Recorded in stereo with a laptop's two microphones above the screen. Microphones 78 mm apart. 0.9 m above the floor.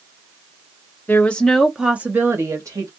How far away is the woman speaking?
About 0.7 m.